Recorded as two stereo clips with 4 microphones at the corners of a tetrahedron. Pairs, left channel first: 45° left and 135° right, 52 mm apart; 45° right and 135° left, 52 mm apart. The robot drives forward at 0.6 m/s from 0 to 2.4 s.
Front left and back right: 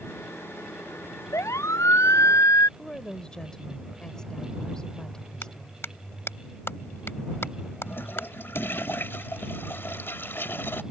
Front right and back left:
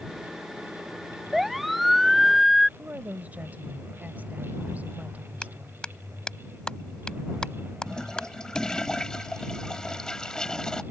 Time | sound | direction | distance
1.3 | a siren | 45° left | ?
2.8 | a woman speaking | 110° left | ?
5.4 | a clap | 25° left | ?
7.9 | a toilet flushing | 25° left | ?